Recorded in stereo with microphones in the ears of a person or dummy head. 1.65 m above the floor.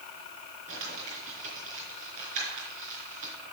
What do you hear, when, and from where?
0.7 s crumpling: 50° right (ahead or behind), 5 m